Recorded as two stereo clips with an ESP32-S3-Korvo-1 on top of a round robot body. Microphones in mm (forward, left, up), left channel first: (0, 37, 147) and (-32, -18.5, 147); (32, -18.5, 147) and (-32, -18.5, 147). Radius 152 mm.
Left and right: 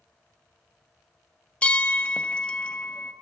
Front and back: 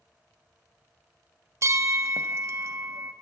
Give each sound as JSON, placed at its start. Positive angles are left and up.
{"t": 1.6, "sound": "a bell", "azimuth_deg": 130, "distance_m": 0.5}